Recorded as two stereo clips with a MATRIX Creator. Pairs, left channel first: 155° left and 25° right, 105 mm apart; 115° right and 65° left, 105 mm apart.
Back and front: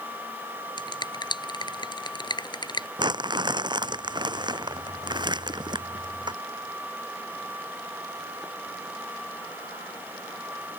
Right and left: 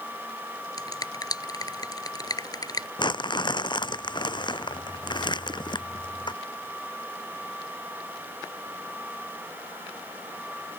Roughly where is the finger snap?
Behind.